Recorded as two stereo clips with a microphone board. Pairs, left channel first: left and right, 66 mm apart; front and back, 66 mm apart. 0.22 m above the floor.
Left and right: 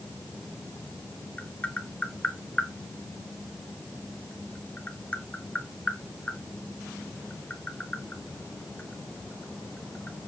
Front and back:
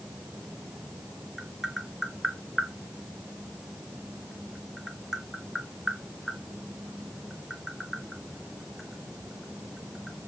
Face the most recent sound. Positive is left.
turn(degrees=100)